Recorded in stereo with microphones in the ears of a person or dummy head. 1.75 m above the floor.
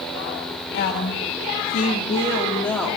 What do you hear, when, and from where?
0.7 s a woman speaking: 65° left (ahead or behind), 1.6 m; by 3.0 s 5° left (ahead or behind), 2.5 m